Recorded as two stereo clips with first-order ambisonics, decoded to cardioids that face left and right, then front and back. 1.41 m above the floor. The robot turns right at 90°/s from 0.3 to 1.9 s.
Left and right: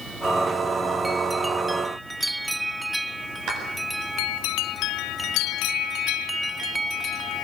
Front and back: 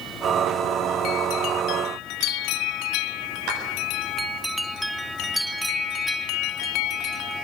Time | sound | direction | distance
3.5 | a clap | 140° right | 8 m